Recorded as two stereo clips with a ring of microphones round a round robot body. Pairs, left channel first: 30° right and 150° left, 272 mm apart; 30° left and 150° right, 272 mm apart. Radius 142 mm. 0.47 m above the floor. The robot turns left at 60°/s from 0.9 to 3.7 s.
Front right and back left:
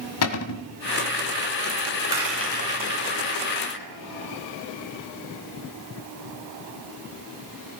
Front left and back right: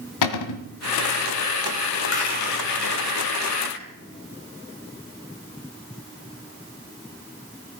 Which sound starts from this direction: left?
A rattle, at 2.1 s.